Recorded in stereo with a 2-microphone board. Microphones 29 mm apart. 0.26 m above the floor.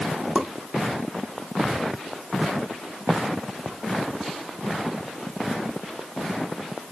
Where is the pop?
40° right (ahead or behind), 1.0 m.